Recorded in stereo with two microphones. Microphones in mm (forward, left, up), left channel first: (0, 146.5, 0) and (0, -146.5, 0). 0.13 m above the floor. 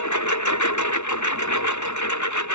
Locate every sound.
0.0 s a lawn mower: 75° left (ahead or behind)